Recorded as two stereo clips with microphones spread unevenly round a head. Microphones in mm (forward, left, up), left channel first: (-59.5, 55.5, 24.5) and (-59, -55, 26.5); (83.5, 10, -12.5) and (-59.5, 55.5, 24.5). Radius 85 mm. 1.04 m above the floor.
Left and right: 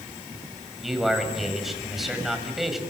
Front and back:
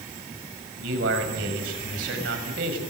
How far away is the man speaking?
About 7 m.